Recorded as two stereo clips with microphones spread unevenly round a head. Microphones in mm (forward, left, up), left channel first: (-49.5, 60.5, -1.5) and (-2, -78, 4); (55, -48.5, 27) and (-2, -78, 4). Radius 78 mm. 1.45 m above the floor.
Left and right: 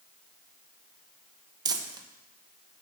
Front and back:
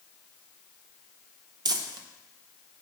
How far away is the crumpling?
About 0.9 m.